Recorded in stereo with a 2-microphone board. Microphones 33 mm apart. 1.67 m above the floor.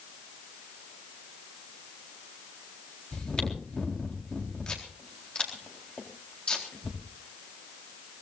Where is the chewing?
30° left (ahead or behind), 4 m.